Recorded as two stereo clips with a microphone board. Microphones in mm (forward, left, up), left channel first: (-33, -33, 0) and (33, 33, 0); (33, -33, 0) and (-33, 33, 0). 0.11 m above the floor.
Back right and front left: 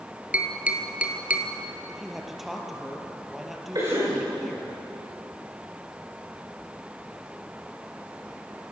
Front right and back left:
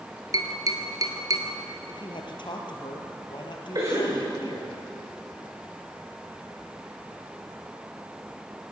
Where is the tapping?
115° left, 1.9 m.